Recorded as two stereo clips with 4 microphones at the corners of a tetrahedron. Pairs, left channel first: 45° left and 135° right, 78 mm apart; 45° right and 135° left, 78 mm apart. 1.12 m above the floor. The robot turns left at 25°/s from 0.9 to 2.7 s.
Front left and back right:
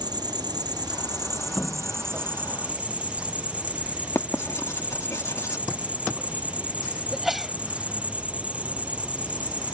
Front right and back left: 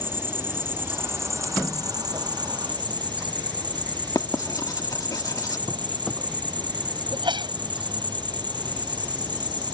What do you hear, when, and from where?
0.0 s an insect: 165° right; by 9.8 s 150° left
4.2 s writing: 10° right
7.1 s a sneeze: 140° left